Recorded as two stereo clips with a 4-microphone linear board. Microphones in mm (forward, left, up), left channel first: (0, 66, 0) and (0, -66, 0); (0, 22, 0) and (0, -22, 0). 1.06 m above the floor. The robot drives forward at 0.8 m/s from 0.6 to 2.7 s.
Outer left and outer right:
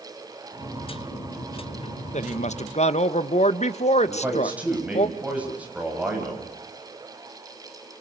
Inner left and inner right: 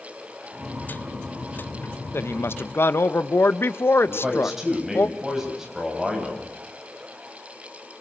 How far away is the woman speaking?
About 1.2 m.